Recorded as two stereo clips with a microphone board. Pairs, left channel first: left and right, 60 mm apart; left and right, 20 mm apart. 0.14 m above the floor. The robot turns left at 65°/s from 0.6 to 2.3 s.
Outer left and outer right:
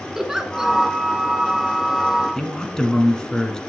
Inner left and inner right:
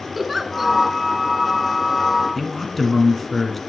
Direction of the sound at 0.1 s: 10° right (ahead or behind).